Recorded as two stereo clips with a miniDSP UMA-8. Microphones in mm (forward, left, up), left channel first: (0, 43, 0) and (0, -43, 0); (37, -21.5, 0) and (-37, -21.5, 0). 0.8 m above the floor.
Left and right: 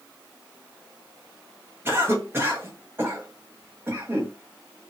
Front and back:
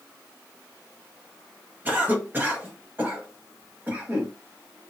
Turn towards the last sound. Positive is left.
turn(degrees=-135)